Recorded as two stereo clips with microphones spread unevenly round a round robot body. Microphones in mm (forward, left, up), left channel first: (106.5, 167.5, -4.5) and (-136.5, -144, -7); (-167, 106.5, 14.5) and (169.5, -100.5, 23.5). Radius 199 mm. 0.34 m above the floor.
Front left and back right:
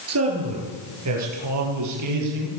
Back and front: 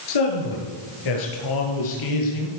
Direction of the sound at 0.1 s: Straight behind.